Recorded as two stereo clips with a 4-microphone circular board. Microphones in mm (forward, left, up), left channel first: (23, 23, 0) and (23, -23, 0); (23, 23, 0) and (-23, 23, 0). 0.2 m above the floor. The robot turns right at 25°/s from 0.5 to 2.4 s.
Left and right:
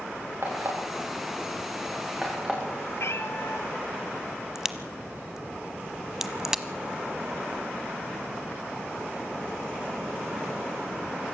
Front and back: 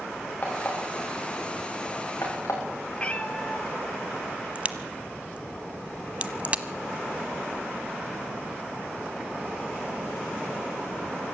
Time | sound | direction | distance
0.4 | an alarm clock | 55° right | 7.5 m
3.0 | a cat meowing | 65° left | 1.8 m
4.5 | a crack | 160° right | 1.0 m